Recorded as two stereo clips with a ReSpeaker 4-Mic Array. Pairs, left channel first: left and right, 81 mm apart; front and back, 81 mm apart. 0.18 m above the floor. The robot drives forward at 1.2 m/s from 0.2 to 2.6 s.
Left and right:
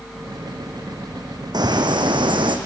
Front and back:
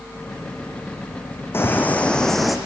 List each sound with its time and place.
1.5 s a bird: 60° right, 2.5 m; by 2.6 s 95° right, 2 m